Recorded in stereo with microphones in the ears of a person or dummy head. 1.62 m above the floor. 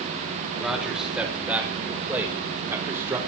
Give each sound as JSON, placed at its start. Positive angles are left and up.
{"t": 0.6, "sound": "a man speaking", "side_deg": -5, "distance_m": 5.0}